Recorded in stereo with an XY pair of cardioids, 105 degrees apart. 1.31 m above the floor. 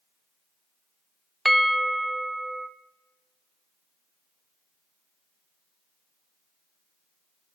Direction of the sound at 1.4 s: Straight ahead.